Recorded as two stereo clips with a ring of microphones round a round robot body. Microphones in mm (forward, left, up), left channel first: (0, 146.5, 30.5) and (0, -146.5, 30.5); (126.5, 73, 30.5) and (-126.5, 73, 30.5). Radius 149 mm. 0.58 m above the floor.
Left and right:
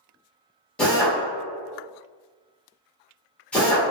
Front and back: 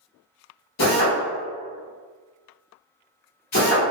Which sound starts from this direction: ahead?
A drill, at 0.8 s.